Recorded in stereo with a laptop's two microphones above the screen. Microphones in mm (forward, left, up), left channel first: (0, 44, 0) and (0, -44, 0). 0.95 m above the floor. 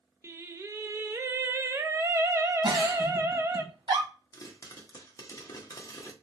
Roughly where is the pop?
Left.